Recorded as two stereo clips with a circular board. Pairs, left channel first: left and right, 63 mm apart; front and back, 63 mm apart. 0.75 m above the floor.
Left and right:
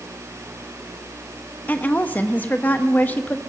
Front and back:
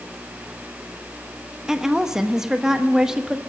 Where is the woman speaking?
105° left, 0.9 m.